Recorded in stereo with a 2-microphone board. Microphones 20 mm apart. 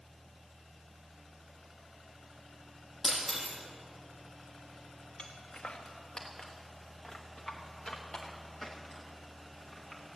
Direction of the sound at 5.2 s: 75° left (ahead or behind).